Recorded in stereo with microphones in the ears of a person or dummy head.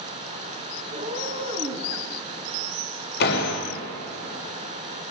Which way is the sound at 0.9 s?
45° right (ahead or behind).